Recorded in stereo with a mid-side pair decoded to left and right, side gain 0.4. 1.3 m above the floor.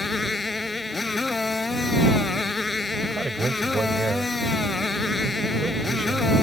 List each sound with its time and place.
0.0 s a motorcycle: 25° left
3.0 s a man speaking: 30° right